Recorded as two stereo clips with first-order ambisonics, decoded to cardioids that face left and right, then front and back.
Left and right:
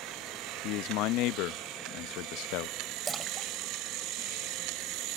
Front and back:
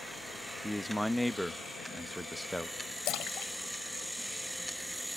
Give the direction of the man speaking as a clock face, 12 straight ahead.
9 o'clock.